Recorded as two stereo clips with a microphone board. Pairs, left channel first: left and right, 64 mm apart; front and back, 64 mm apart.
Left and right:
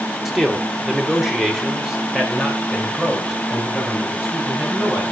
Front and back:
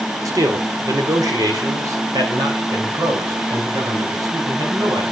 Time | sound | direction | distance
0.2 | a man speaking | 175° right | 1.9 m